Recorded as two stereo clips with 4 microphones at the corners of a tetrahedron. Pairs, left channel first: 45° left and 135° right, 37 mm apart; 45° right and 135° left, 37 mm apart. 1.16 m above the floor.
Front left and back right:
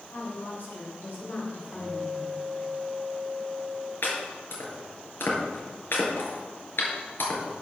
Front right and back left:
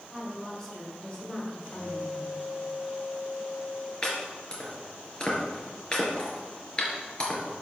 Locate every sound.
0.1 s a woman speaking: 20° left, 5 m
1.7 s a guitar: 70° right, 4 m
4.0 s chopping: 20° left, 4.5 m